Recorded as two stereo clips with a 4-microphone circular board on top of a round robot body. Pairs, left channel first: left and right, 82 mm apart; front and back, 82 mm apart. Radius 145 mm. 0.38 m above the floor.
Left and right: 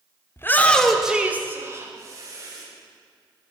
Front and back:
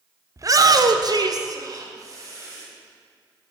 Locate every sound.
0.4 s a shout: 140° left, 1.4 m; by 2.6 s 130° right, 3 m